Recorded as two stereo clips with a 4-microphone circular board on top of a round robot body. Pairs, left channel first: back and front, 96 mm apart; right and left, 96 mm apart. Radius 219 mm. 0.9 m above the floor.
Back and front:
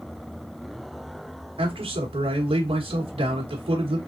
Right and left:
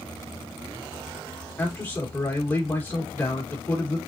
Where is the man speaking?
25° right, 1.2 m.